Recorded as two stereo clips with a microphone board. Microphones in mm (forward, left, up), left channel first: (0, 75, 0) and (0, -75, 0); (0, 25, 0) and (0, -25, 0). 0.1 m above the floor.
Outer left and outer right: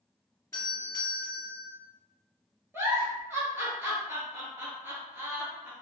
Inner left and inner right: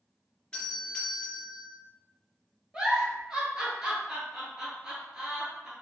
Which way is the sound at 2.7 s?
15° right (ahead or behind).